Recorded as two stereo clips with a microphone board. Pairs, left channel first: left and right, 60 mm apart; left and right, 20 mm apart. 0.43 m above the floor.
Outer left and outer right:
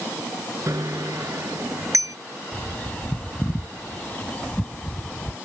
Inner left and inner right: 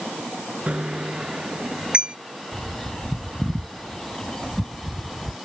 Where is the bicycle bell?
80° right.